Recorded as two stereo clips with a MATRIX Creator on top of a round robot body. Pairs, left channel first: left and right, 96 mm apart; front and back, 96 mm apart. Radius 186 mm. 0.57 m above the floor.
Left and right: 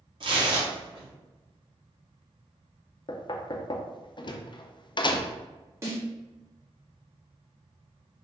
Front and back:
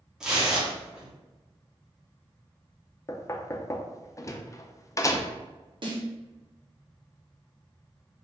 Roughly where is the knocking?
Ahead left.